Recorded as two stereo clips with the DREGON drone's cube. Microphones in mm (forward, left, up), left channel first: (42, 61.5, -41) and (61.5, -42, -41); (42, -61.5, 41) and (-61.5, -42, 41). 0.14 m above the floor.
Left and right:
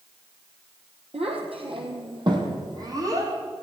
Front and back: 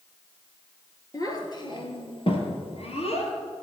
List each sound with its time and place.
1.1 s a child speaking: 65° right, 2.5 m; by 3.3 s 20° right, 3.5 m